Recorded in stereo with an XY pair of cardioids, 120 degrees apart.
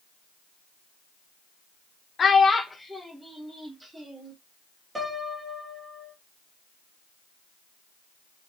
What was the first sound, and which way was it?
A child speaking, 35° left.